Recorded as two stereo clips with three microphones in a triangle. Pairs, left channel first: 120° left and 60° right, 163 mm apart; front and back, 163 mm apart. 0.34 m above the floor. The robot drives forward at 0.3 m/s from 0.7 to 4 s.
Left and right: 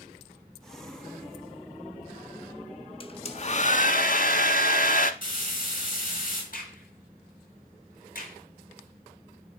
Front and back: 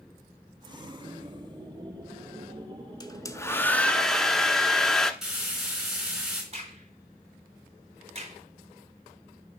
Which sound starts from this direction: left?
Frying, at 5.2 s.